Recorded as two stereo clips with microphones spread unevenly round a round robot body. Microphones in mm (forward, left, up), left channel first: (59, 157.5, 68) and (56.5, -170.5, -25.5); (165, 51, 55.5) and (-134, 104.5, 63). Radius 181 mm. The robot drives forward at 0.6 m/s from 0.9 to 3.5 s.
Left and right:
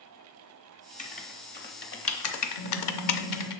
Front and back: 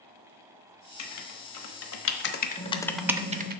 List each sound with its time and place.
1.0 s writing: 15° left, 1.4 m; by 3.6 s 120° left, 0.7 m
2.6 s typing on a keyboard: 70° left, 1.1 m; by 3.5 s 125° left, 1.2 m